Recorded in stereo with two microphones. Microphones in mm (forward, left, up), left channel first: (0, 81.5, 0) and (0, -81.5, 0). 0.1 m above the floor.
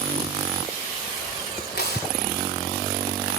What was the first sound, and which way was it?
Tearing paper, 85° left.